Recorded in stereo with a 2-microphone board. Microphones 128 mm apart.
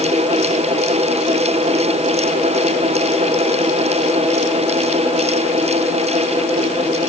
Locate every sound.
Only background noise.